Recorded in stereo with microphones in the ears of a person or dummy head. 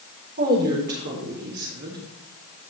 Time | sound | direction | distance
0.4 | a woman speaking | 50° right (ahead or behind) | 4.5 m